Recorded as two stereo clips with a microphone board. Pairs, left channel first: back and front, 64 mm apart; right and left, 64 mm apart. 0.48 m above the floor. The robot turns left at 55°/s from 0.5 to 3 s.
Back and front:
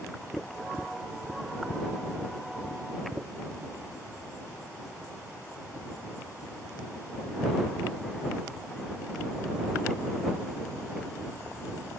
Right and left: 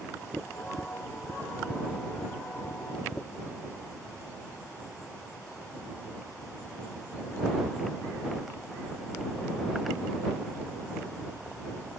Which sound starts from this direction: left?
Tapping, at 0.3 s.